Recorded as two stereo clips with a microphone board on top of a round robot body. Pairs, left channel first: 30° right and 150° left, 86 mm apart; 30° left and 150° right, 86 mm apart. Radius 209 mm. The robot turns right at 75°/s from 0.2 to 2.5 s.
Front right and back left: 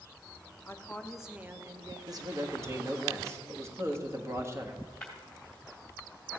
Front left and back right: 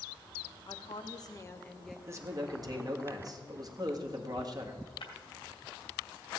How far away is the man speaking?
About 1.7 m.